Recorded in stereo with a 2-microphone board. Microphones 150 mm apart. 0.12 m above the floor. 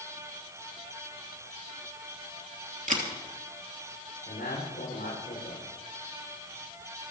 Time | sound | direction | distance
2.9 | a camera shutter | 60° right (ahead or behind) | 3 m
4.3 | a man speaking | 75° left (ahead or behind) | 8 m